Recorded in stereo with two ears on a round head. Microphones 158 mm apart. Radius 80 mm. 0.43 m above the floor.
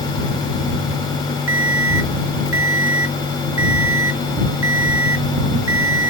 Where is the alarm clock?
85° right.